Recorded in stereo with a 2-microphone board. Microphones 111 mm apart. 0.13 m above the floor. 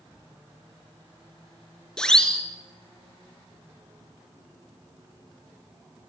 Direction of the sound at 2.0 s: 5° left (ahead or behind).